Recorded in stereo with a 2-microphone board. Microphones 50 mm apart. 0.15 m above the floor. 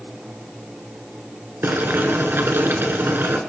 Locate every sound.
1.6 s boiling: 50° right (ahead or behind), 1.9 m